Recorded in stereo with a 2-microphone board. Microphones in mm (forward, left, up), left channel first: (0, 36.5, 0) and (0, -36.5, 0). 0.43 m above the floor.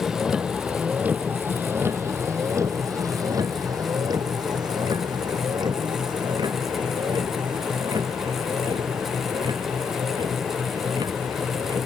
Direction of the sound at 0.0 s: 5° right (ahead or behind).